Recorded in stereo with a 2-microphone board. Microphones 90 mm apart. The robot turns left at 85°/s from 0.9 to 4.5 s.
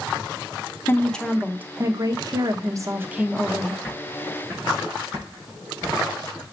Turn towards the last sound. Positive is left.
turn(degrees=-45)  # may be behind; listen again after turning